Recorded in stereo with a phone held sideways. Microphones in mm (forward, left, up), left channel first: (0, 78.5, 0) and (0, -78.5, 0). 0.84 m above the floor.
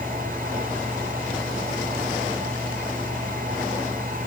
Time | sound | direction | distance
0.0 | a fan | 75° right (ahead or behind) | 2 m